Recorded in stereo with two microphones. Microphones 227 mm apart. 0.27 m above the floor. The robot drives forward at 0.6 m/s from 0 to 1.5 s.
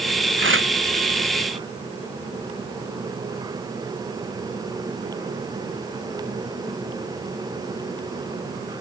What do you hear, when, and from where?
0.4 s tearing paper: 60° right (ahead or behind); by 0.7 s 65° right (ahead or behind)